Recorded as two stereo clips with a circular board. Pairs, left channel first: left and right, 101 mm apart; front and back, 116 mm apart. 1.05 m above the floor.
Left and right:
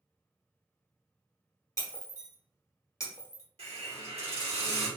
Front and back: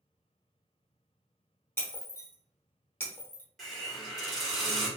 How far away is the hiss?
About 1.3 m.